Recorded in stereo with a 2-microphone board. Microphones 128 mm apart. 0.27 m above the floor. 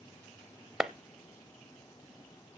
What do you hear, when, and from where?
0.8 s a clap: 5° right (ahead or behind), 0.7 m